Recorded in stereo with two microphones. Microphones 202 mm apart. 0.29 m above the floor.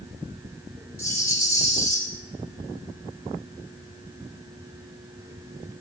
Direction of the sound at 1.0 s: 15° left (ahead or behind).